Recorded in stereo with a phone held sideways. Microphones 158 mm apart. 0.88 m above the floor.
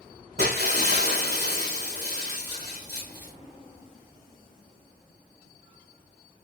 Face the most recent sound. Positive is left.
turn(degrees=-80)